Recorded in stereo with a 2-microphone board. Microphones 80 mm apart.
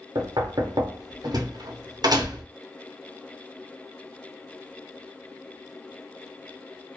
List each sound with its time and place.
0.1 s knocking: 60° right (ahead or behind), 0.6 m